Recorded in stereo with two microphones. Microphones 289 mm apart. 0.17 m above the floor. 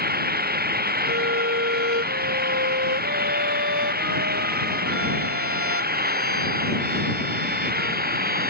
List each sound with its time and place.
0.0 s an engine running: 35° right (ahead or behind)
1.0 s a violin: 50° right (ahead or behind)